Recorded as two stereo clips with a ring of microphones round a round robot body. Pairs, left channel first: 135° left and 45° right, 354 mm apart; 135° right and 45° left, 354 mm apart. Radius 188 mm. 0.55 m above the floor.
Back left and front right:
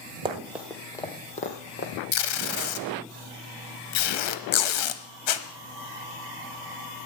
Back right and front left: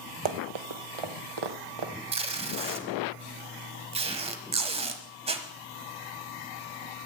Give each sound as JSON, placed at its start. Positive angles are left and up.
{"t": 0.2, "sound": "running footsteps", "azimuth_deg": 30, "distance_m": 1.2}
{"t": 2.1, "sound": "tape being pulled", "azimuth_deg": 120, "distance_m": 1.3}